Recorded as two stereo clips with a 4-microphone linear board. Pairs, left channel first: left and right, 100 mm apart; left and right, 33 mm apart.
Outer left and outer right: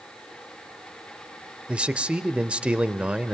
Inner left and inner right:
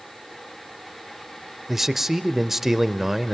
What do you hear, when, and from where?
1.7 s a man speaking: 10° right (ahead or behind), 0.8 m